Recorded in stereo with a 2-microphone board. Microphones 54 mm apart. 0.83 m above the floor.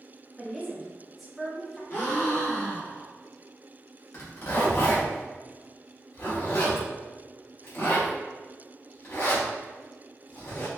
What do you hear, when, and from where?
0.4 s a woman speaking: 5° right (ahead or behind), 1.0 m
1.9 s a gasp: 55° left (ahead or behind), 1.7 m
4.1 s a zipper: 60° left (ahead or behind), 1.2 m